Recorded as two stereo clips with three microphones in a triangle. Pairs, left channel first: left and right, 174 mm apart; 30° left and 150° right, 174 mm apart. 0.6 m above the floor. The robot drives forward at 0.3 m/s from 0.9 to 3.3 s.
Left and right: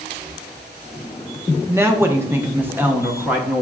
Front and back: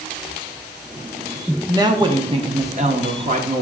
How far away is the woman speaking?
About 0.5 m.